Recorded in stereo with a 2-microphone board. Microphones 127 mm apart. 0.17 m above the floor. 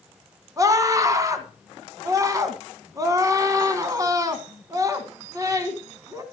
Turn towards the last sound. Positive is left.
turn(degrees=-25)  # may be behind; listen again after turning